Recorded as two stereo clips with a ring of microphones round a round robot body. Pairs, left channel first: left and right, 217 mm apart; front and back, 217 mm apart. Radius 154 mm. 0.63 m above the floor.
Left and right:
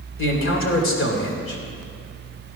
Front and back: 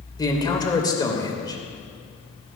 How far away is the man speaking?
About 3 m.